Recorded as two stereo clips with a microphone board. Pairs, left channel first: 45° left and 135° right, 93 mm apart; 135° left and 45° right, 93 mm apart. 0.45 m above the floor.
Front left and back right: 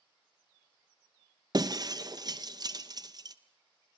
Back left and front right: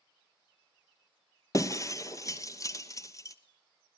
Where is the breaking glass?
175° right, 1.0 m.